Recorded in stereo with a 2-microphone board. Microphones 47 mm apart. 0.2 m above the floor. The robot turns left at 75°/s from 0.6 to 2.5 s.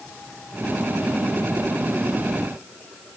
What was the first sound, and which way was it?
Only background noise.